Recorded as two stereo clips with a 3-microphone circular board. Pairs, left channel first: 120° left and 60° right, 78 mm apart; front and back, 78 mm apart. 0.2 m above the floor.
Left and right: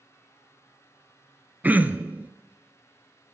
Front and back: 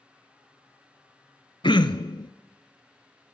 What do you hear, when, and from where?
1.6 s throat clearing: 10° left, 0.7 m